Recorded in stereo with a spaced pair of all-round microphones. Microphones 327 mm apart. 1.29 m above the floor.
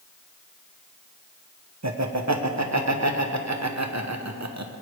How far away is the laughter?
About 0.9 m.